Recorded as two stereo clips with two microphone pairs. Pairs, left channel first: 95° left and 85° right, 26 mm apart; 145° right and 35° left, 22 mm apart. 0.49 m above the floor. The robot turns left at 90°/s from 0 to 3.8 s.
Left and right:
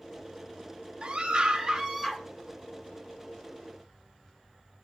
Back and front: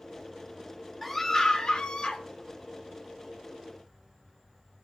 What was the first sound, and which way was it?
A scream, 65° right.